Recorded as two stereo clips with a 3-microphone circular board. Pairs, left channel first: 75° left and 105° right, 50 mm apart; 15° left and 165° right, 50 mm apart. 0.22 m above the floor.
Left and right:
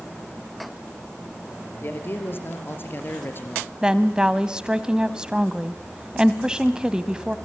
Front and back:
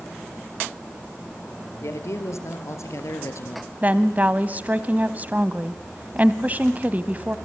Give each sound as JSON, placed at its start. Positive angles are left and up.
{"t": 1.8, "sound": "a man speaking", "azimuth_deg": 30, "distance_m": 3.5}
{"t": 3.8, "sound": "a woman speaking", "azimuth_deg": -165, "distance_m": 1.1}